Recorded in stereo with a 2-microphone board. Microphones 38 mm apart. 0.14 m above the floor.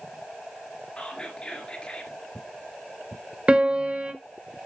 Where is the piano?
40° right (ahead or behind), 1.4 m.